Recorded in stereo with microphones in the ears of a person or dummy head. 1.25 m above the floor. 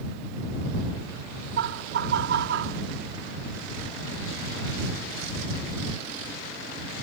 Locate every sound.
1.6 s laughter: 55° right (ahead or behind)